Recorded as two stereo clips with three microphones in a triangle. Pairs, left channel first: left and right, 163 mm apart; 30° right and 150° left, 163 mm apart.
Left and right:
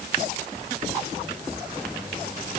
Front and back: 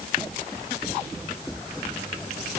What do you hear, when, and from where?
Only background noise.